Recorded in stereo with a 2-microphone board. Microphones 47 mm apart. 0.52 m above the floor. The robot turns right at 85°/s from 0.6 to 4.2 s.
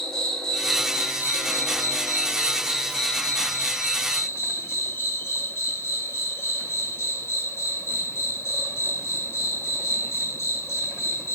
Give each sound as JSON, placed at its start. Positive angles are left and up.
{"t": 0.0, "sound": "an insect", "azimuth_deg": 170, "distance_m": 0.9}